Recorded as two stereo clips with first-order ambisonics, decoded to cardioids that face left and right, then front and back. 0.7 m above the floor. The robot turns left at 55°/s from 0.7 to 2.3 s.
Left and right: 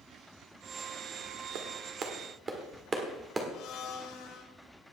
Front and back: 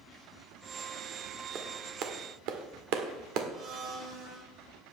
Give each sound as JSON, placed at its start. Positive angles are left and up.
{"t": 1.6, "sound": "a clap", "azimuth_deg": -120, "distance_m": 1.5}
{"t": 3.5, "sound": "a blender", "azimuth_deg": 130, "distance_m": 2.5}